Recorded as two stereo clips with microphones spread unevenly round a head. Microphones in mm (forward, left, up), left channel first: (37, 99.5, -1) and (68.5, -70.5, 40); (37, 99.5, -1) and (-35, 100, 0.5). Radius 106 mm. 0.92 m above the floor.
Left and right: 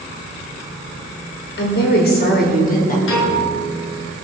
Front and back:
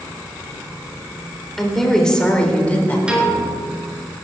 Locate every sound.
1.6 s a woman speaking: 85° left, 4 m; by 3.0 s 65° left, 4 m
3.1 s a piano: 100° left, 5.5 m